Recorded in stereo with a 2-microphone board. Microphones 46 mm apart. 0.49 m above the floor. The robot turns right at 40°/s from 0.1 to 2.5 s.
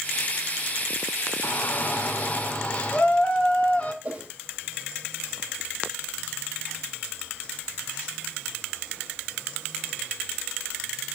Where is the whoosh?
25° right (ahead or behind), 1.6 m.